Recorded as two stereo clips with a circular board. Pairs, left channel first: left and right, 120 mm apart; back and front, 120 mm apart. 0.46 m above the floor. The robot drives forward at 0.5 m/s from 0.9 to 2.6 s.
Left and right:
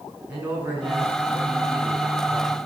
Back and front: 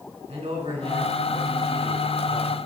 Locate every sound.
0.3 s a man speaking: 15° right, 4 m; by 2.6 s 20° right, 3 m